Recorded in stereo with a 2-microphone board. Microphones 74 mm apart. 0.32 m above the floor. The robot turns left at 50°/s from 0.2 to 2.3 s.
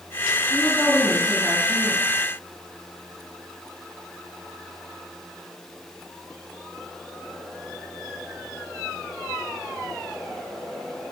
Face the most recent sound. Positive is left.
turn(degrees=-45)